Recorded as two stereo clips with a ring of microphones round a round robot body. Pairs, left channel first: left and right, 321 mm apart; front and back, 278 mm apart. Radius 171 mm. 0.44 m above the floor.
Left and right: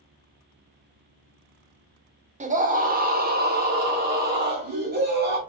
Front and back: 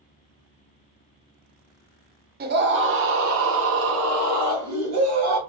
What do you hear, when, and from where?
2.4 s a scream: 145° right, 0.8 m; by 5.4 s 150° right, 2.5 m